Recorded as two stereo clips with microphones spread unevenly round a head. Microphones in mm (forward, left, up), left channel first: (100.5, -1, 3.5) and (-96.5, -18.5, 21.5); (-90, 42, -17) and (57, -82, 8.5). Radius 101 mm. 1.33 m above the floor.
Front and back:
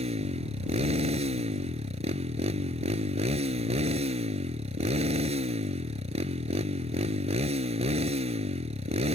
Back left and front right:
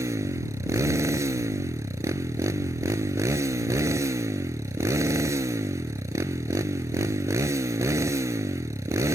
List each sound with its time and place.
0.0 s a motorcycle: 115° right